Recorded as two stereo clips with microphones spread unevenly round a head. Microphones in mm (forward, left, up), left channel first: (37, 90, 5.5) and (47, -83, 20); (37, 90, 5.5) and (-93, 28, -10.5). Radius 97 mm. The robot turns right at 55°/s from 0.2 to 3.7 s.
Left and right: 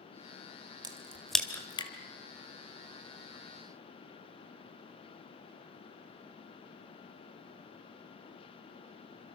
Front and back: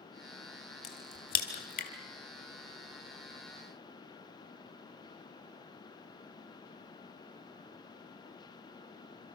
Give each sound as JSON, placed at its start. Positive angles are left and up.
{"t": 0.8, "sound": "a crack", "azimuth_deg": -25, "distance_m": 2.5}